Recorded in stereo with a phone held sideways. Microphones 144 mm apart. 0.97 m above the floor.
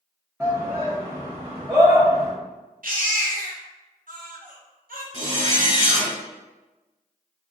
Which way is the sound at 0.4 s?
10° right (ahead or behind).